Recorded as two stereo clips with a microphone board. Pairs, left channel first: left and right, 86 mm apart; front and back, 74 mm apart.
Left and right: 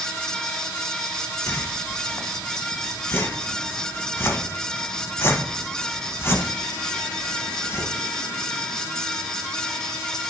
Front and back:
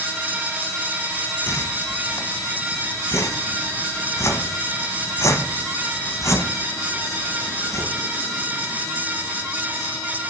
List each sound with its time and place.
1.5 s a whoosh: 35° left, 0.8 m